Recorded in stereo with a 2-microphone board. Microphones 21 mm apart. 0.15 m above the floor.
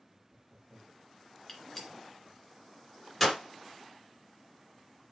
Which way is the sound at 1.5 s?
Centre (ahead or behind).